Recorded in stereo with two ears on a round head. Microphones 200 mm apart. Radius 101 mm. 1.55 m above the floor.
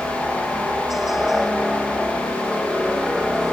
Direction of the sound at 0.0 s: Centre (ahead or behind).